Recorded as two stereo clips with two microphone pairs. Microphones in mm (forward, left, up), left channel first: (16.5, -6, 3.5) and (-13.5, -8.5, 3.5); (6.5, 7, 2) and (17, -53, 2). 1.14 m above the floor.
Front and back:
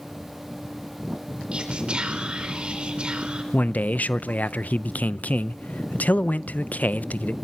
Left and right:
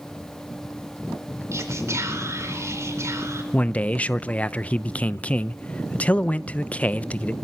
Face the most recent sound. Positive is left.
turn(degrees=35)